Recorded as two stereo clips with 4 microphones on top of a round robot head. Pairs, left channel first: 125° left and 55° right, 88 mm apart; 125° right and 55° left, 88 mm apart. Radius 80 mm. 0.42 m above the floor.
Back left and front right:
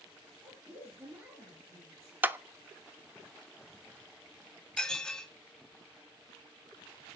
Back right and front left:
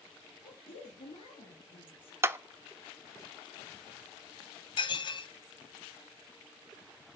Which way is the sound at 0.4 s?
115° right.